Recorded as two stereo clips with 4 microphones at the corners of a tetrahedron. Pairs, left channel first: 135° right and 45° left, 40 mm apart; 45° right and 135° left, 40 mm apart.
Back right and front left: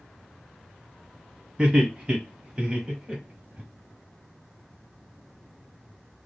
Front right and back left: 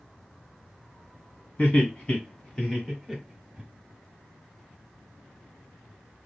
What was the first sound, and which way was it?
Laughter, 20° right.